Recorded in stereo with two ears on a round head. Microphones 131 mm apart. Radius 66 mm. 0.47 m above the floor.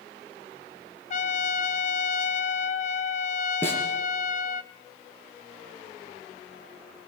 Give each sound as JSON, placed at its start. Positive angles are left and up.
{"t": 1.1, "sound": "a trumpet", "side_deg": 50, "distance_m": 0.9}
{"t": 3.6, "sound": "a snare drum", "side_deg": 15, "distance_m": 4.5}